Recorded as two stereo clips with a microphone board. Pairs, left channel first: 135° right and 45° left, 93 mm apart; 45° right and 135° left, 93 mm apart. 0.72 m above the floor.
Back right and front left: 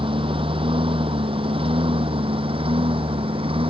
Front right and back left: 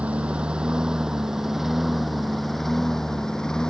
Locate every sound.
0.0 s a lawn mower: 60° left; by 3.7 s 40° left